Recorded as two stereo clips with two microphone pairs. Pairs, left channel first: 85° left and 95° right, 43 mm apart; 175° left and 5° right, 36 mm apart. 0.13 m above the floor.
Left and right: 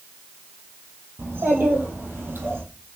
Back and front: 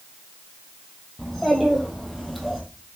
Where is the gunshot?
I don't hear a gunshot.